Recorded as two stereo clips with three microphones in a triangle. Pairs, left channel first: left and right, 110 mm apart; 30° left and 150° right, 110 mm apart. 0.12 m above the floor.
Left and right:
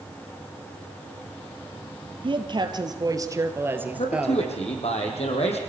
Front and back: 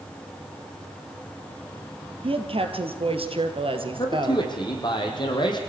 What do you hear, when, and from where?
2.2 s a woman speaking: 125° right, 3 m; by 4.9 s 170° left, 2 m
3.9 s a man speaking: 75° left, 5 m